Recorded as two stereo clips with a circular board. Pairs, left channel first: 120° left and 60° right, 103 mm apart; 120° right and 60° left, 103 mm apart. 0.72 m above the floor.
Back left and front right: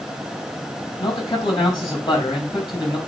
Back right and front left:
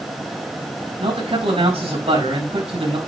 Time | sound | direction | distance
1.0 | a man speaking | 75° left | 5 m